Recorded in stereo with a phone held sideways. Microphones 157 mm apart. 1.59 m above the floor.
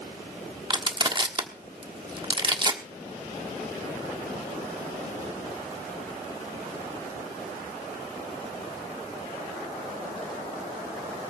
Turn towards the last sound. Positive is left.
turn(degrees=-30)  # may be behind; listen again after turning